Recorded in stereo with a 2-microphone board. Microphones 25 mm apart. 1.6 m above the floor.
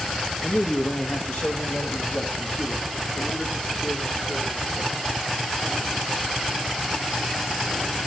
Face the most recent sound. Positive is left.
turn(degrees=65)  # may be behind; listen again after turning